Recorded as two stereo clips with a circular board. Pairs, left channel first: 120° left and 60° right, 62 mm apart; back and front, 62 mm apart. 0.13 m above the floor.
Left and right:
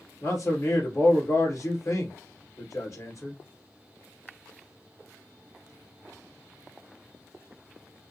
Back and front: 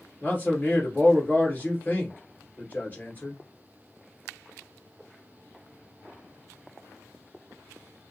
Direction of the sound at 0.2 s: 125° left.